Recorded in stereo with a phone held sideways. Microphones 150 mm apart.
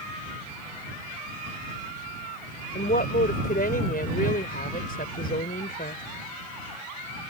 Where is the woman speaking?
80° left.